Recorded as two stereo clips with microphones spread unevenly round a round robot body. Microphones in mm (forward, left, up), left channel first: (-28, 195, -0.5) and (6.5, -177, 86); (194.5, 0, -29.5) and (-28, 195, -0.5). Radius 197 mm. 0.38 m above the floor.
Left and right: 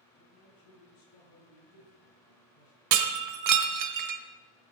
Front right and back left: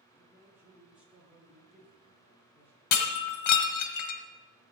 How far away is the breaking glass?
About 1.1 m.